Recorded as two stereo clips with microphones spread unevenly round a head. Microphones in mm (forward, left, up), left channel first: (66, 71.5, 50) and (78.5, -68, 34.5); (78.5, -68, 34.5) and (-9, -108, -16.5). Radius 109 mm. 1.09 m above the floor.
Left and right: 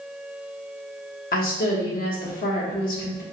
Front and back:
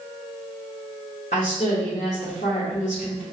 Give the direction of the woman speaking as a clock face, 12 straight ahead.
9 o'clock.